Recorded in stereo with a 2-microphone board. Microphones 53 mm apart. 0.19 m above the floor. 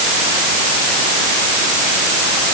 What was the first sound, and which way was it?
Only background noise.